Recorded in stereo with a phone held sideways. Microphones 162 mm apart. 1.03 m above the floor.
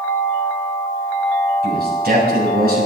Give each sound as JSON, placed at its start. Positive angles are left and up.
{"t": 1.6, "sound": "a man speaking", "side_deg": -75, "distance_m": 6.5}